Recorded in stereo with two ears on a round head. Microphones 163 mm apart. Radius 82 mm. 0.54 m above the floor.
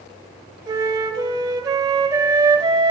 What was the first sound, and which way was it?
A flute, 20° right (ahead or behind).